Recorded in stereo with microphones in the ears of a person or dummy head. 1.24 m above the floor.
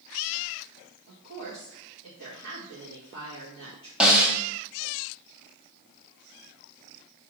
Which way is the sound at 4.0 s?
Centre (ahead or behind).